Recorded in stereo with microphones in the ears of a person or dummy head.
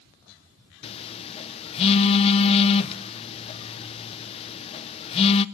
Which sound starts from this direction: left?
A phone buzzing, at 0.8 s.